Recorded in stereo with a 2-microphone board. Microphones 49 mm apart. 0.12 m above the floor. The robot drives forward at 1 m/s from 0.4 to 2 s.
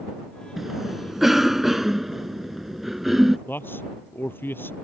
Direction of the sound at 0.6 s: 5° right (ahead or behind).